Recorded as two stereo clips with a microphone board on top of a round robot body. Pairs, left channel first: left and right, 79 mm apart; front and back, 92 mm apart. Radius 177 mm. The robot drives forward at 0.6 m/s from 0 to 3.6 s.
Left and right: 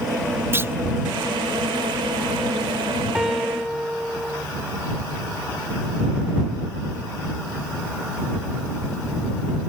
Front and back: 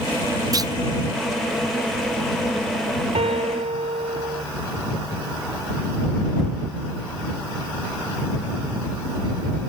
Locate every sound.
0.5 s a clunk: 145° right
3.1 s a piano: 175° right